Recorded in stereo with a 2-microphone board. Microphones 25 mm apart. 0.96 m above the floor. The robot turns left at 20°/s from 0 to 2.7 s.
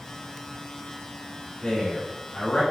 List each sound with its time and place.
1.6 s a man speaking: 40° left (ahead or behind), 1.3 m; by 2.6 s 60° left (ahead or behind), 1.3 m